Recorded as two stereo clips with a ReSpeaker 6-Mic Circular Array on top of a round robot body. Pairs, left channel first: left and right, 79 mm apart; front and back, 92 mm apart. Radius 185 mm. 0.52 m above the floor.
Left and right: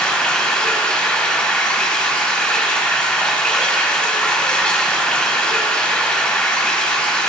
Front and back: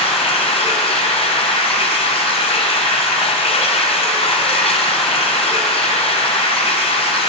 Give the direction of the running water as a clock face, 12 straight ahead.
12 o'clock.